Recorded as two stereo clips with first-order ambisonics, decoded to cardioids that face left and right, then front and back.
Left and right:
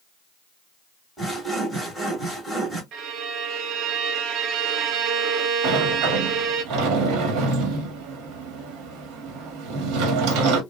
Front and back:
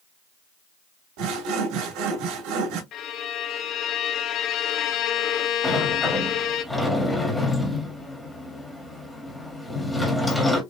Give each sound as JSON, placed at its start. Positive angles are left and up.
{"t": 1.2, "sound": "sawing", "azimuth_deg": -175, "distance_m": 2.0}
{"t": 2.9, "sound": "a violin", "azimuth_deg": -45, "distance_m": 0.7}
{"t": 5.6, "sound": "a sliding door", "azimuth_deg": -85, "distance_m": 1.4}